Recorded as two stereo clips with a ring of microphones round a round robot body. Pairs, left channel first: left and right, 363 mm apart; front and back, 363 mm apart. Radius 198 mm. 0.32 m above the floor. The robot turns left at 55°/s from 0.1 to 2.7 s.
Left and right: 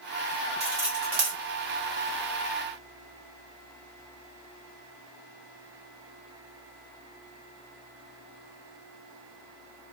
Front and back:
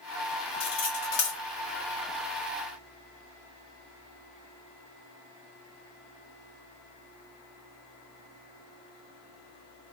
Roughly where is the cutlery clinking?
Ahead.